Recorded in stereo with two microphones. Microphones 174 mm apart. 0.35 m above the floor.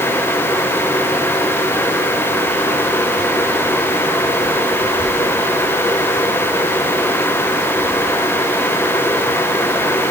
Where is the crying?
No crying in this recording.